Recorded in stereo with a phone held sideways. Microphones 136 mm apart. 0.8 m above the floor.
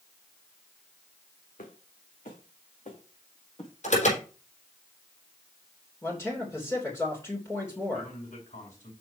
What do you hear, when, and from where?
1.6 s footsteps: 75° left (ahead or behind), 3 m; by 3.7 s 40° left (ahead or behind), 3 m
3.8 s an alarm: 60° left (ahead or behind), 4.5 m
6.0 s a man speaking: 20° left (ahead or behind), 3 m
7.9 s a man speaking: 70° left (ahead or behind), 5 m